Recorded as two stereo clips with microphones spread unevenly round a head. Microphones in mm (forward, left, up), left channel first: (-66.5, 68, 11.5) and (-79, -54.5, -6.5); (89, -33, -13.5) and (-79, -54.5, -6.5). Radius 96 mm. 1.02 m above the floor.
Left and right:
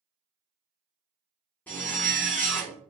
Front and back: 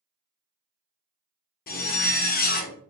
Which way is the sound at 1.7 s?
15° left.